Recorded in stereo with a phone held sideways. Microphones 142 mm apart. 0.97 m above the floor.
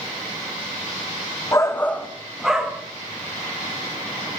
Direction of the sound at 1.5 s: 25° left (ahead or behind).